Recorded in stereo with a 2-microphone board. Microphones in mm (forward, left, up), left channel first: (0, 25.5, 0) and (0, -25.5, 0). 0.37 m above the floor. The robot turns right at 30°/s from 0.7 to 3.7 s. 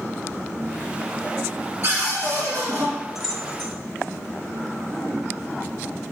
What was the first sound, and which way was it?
A cupboard door, 130° right.